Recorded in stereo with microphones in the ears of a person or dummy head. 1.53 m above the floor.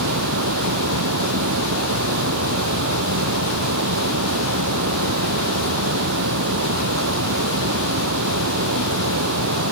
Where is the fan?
75° right (ahead or behind).